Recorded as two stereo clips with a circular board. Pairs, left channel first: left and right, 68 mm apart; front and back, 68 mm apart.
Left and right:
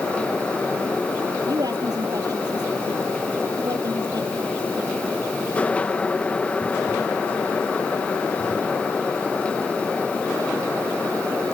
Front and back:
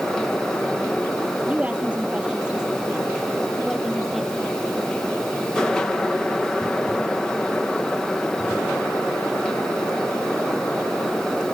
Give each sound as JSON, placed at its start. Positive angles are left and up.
{"t": 1.5, "sound": "a woman speaking", "azimuth_deg": -110}